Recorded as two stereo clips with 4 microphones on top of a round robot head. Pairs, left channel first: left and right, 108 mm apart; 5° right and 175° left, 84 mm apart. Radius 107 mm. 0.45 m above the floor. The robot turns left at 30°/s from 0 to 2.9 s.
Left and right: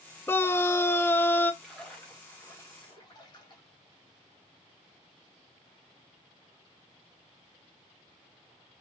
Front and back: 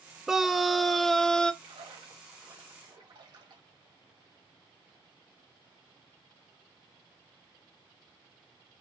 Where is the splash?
Straight behind, 2 m; by 3.6 s 140° left, 2 m.